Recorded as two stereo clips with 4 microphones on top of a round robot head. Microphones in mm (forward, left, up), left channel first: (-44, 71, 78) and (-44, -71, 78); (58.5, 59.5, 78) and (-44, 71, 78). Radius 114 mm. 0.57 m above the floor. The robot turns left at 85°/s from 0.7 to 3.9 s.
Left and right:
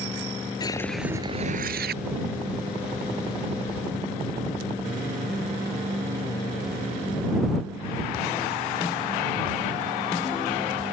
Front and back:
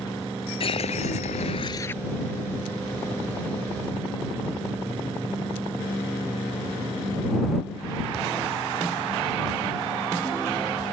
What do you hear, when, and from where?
0.6 s a whoosh: 20° left; by 2.0 s 90° right